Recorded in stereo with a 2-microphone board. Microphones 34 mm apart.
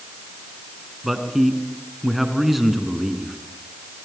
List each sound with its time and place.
1.0 s a man speaking: 5° right (ahead or behind), 3 m